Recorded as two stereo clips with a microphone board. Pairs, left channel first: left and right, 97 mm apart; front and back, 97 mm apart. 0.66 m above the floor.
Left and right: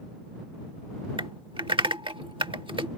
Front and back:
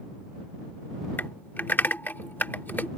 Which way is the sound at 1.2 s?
65° right.